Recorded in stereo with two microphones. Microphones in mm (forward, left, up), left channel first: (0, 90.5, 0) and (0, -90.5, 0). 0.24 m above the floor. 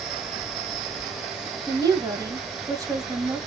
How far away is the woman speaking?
About 1.0 m.